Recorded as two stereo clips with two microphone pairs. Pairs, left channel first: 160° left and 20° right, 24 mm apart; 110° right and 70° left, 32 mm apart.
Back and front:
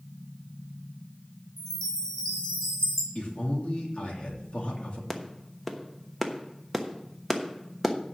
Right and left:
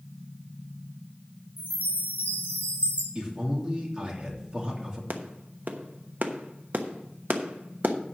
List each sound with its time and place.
1.6 s a chime: 135° right, 5 m
3.1 s a man speaking: 125° left, 3 m
5.1 s a clap: 80° left, 1.0 m